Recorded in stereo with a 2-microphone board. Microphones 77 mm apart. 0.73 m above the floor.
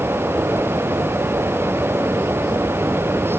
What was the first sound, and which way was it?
Only background noise.